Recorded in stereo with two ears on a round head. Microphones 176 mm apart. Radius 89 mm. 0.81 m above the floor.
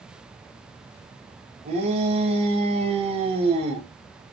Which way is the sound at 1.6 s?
30° right (ahead or behind).